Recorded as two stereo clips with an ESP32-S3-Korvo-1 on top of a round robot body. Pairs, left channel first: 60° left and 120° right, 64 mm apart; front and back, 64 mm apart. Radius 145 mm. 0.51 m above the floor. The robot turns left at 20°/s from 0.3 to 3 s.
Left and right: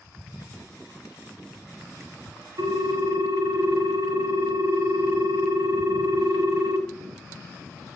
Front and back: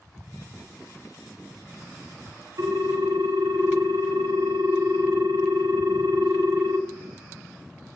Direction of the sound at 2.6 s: 150° right.